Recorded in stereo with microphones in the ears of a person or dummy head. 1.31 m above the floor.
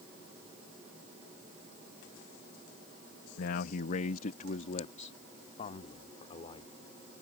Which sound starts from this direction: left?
A man speaking, at 3.4 s.